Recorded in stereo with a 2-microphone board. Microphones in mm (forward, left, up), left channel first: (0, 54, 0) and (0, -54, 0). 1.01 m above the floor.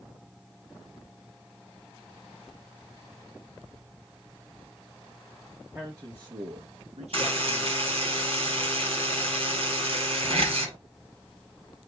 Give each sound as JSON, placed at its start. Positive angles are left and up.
{"t": 5.8, "sound": "a man speaking", "side_deg": -15, "distance_m": 0.7}
{"t": 7.1, "sound": "a buzzer", "side_deg": -60, "distance_m": 2.0}